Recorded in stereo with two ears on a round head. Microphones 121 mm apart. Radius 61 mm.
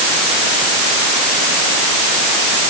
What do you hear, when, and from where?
Only background noise.